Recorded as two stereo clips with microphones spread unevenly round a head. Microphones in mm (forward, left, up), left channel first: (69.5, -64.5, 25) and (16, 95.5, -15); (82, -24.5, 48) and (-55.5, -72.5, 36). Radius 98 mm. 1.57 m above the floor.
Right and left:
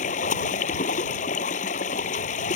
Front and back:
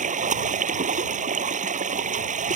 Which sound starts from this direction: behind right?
Running water, at 0.0 s.